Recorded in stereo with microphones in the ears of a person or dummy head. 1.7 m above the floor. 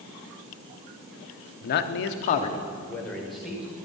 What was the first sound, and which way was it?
A man speaking, 50° left (ahead or behind).